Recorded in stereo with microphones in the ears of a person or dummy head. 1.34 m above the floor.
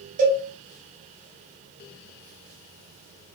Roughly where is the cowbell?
Right.